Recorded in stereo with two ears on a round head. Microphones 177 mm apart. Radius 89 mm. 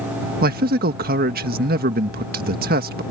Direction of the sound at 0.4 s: 50° right (ahead or behind).